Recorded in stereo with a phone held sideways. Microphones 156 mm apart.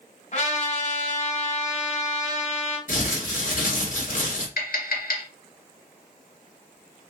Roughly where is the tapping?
Left.